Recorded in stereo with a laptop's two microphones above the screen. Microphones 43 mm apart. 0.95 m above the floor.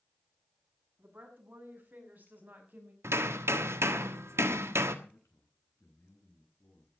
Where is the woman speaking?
45° right (ahead or behind), 7 m.